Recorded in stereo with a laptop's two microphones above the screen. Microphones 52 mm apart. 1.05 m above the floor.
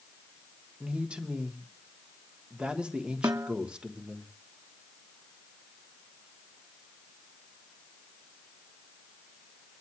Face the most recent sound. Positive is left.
turn(degrees=-75)  # may be behind; listen again after turning